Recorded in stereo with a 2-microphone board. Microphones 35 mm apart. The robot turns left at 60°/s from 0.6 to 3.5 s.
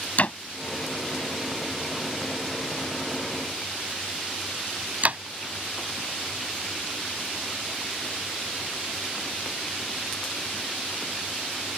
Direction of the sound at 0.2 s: 50° left (ahead or behind).